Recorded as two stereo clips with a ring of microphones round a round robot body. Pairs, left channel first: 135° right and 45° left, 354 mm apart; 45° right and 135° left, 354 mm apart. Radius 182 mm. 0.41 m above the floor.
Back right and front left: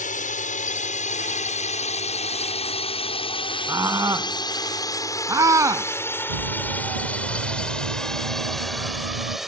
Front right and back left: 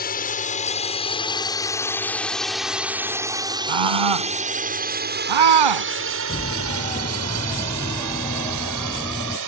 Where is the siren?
30° left; by 9.4 s 40° left.